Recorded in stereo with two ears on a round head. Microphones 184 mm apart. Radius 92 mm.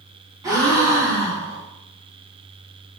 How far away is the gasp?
About 0.8 m.